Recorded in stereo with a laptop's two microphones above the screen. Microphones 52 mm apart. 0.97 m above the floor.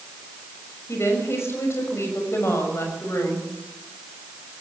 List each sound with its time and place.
0.9 s a woman speaking: 60° left (ahead or behind), 6 m